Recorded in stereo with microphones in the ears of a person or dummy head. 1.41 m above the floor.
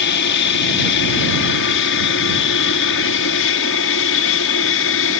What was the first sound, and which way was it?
An aircraft, 60° left (ahead or behind).